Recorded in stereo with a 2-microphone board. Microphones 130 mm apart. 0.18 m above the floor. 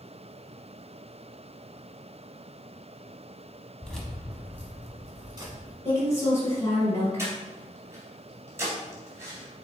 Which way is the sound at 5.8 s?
20° left (ahead or behind).